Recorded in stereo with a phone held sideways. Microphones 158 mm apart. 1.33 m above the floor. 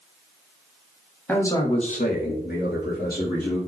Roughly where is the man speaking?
Centre.